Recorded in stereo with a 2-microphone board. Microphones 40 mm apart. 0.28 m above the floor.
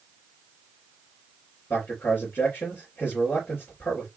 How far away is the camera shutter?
No camera shutter in this recording.